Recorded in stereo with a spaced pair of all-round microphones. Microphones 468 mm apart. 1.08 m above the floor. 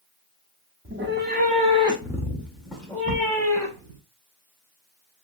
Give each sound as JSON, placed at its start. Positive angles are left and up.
{"t": 0.8, "sound": "a cat meowing", "side_deg": -25, "distance_m": 0.6}